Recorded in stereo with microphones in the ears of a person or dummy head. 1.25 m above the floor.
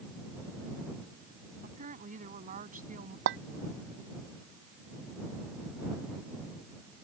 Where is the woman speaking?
40° right (ahead or behind).